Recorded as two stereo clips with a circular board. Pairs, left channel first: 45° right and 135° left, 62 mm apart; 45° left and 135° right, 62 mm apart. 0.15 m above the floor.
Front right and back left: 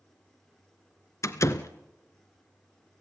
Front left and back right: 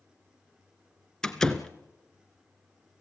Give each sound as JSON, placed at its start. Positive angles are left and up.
{"t": 1.2, "sound": "a door slam", "azimuth_deg": -35, "distance_m": 1.3}